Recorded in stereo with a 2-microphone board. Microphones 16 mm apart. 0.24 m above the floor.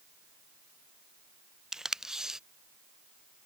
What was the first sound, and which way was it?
Tape being pulled, 40° right (ahead or behind).